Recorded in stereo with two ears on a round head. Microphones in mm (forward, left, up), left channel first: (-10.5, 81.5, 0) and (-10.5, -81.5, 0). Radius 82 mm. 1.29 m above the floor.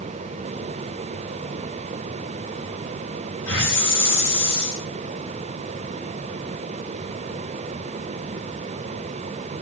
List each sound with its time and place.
3.5 s a hiss: 70° left (ahead or behind), 8.5 m